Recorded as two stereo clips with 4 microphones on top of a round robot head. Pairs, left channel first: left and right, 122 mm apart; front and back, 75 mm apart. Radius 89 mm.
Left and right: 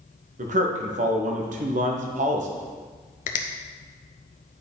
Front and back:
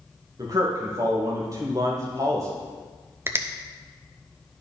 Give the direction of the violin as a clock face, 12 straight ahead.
No violin in this recording.